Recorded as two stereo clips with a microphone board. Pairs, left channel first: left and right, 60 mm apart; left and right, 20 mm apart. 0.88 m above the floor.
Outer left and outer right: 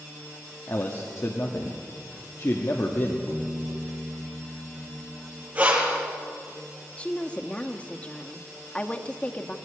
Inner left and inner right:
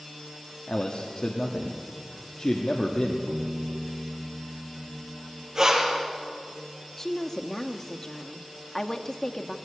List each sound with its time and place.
0.7 s a man speaking: 55° left (ahead or behind), 1.5 m
3.3 s a piano: 85° left, 1.9 m
5.5 s breathing: 25° right (ahead or behind), 3.5 m
7.0 s a woman speaking: 20° left (ahead or behind), 1.1 m